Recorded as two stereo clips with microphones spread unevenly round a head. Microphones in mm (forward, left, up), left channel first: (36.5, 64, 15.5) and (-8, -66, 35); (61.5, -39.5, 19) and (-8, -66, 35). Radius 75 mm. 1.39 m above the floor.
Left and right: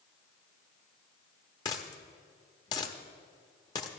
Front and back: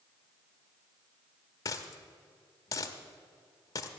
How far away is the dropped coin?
About 0.9 m.